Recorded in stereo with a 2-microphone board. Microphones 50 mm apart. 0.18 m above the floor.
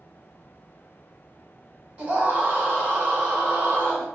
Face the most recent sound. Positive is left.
turn(degrees=-40)  # may be behind; listen again after turning